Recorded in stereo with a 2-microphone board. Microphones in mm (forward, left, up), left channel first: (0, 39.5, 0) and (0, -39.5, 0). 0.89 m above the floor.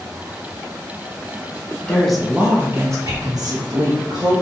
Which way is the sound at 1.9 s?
10° left (ahead or behind).